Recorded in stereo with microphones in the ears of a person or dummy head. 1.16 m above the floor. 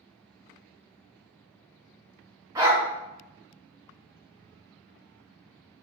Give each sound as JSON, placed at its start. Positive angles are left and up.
{"t": 2.5, "sound": "a dog barking", "side_deg": -25, "distance_m": 0.8}